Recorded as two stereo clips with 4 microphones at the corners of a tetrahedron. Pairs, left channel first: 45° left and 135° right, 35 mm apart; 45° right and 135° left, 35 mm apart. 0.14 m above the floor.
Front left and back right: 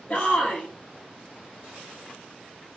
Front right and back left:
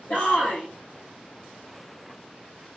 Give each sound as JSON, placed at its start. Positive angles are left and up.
{"t": 0.1, "sound": "a shout", "azimuth_deg": -10, "distance_m": 3.5}